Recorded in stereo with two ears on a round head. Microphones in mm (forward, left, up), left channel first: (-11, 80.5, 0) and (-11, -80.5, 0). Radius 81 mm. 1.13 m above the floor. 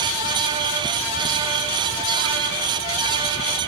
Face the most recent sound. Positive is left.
No sound to turn to.